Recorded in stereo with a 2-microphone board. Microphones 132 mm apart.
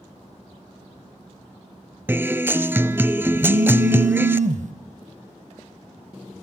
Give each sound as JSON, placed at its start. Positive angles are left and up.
{"t": 2.1, "sound": "a guitar", "side_deg": -15, "distance_m": 0.7}
{"t": 3.4, "sound": "a phone buzzing", "side_deg": -75, "distance_m": 2.5}